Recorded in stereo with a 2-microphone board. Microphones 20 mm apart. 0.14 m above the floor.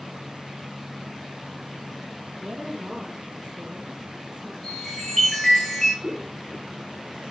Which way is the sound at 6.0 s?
30° right (ahead or behind).